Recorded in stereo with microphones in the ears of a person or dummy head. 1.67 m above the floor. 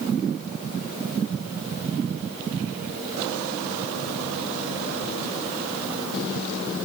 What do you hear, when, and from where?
Only background noise.